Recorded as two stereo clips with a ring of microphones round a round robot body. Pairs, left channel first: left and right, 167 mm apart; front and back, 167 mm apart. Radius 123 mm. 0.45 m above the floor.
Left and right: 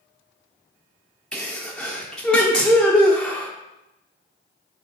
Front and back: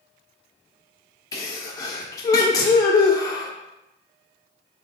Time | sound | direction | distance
1.3 | a sneeze | 10° left | 0.7 m